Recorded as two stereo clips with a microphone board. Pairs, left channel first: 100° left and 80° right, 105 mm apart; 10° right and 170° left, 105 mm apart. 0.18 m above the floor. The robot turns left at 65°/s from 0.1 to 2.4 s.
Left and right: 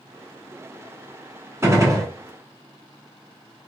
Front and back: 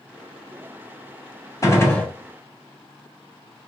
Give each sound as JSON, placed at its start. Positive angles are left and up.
{"t": 1.6, "sound": "a gunshot", "azimuth_deg": -40, "distance_m": 1.2}